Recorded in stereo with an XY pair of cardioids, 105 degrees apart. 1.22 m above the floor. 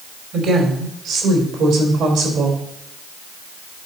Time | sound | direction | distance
0.3 | a woman speaking | 70° right | 3 m